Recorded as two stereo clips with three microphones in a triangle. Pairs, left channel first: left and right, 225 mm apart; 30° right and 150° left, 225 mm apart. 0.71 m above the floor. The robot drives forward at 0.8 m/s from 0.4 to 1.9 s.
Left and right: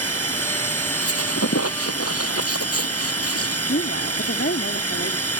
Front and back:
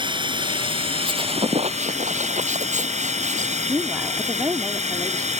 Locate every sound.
0.0 s running water: 80° left; by 5.4 s 90° left
1.0 s a squeak: 80° left; by 3.6 s 90° left
3.7 s a woman speaking: 75° left